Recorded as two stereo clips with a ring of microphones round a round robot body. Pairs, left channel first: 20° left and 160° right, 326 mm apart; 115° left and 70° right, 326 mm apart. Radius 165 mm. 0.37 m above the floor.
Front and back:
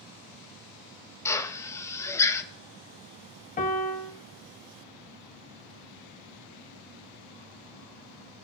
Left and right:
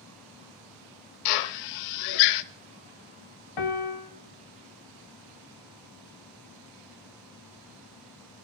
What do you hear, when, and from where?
1.2 s a drill: 105° left, 0.6 m
3.6 s a piano: 90° left, 1.3 m